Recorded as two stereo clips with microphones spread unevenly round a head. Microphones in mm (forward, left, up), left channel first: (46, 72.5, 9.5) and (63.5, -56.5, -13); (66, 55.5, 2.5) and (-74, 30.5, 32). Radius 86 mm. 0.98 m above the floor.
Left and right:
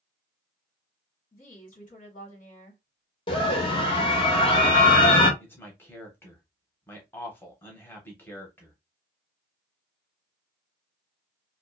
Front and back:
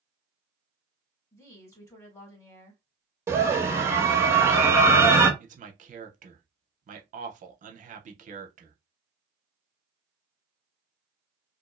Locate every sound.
1.3 s a woman speaking: 70° left, 1.3 m
3.3 s a scream: 110° left, 0.9 m
5.4 s a man speaking: straight behind, 0.7 m